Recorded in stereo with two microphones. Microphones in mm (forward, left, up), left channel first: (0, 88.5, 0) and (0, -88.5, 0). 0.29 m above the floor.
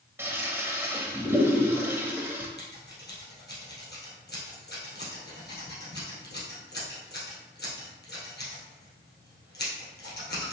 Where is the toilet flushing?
10° right (ahead or behind), 0.8 m.